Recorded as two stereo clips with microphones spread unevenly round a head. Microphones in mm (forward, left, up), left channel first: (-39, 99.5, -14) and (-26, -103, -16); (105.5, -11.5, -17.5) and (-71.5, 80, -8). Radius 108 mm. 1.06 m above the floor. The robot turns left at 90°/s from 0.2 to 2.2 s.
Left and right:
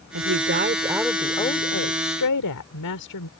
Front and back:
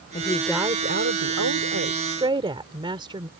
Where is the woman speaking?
95° right; by 3.3 s 85° left.